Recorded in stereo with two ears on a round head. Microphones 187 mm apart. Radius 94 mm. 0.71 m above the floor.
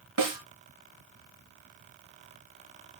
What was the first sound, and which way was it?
A snare drum, 75° right (ahead or behind).